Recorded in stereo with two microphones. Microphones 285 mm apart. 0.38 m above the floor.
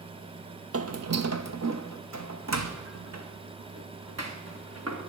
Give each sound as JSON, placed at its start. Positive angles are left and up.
{"t": 0.7, "sound": "footsteps", "side_deg": -50, "distance_m": 0.6}